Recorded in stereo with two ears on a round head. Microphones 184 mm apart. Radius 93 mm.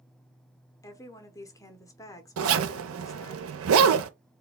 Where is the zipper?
70° right (ahead or behind), 0.5 m.